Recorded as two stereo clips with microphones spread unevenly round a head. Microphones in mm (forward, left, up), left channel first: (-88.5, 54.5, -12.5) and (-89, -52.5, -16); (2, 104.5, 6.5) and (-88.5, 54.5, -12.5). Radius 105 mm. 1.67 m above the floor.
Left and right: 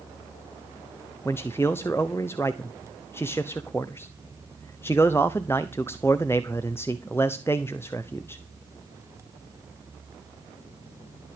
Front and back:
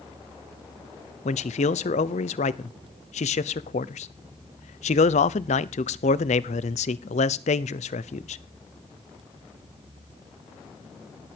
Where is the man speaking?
10° left, 0.7 m.